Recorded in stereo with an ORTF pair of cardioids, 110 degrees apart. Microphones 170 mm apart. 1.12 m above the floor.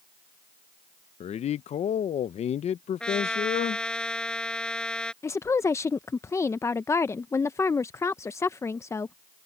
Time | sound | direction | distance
1.2 | a man speaking | 45° left | ?
3.0 | a trumpet | 5° left | ?
5.2 | a woman speaking | 15° left | ?